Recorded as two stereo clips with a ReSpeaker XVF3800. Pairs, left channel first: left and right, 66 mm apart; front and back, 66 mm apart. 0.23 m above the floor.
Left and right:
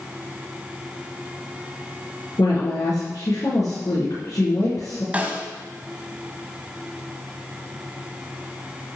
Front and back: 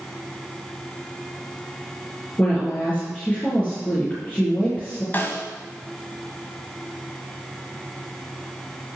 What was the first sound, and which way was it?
A woman speaking, 70° left.